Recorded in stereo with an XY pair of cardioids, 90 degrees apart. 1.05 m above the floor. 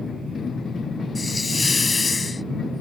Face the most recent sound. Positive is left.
turn(degrees=35)